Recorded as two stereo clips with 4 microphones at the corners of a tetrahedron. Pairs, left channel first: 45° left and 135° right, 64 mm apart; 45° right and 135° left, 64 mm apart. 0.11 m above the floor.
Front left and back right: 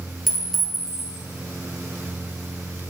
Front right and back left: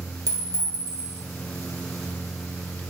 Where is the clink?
135° left, 2 m.